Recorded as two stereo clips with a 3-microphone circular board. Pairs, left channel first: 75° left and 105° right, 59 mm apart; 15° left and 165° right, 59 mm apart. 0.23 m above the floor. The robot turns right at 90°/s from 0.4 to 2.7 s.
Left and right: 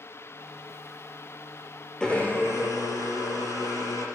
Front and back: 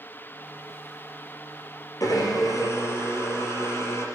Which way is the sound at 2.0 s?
5° right.